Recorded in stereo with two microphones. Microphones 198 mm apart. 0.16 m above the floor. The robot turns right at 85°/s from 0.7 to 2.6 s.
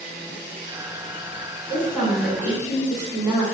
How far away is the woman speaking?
About 1.3 m.